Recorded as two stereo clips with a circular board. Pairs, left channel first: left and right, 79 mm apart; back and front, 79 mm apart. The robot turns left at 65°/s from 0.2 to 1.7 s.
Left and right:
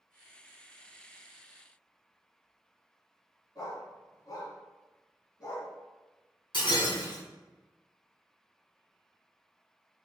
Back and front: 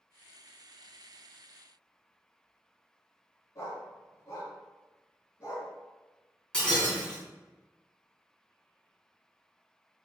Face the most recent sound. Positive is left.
turn(degrees=100)